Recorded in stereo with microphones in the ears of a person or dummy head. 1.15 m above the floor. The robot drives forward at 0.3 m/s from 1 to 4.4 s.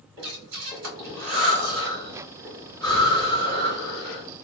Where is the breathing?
65° right (ahead or behind), 1.3 m; by 4.2 s 55° right (ahead or behind), 1.4 m.